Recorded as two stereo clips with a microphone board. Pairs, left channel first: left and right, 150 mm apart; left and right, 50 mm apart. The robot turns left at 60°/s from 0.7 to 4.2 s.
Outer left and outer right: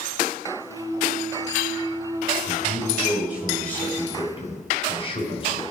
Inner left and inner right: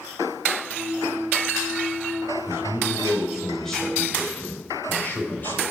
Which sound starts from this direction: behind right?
A man speaking, at 2.5 s.